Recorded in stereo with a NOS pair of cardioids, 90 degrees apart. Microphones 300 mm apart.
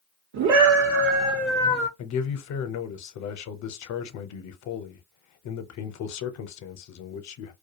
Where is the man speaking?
65° left, 0.8 m.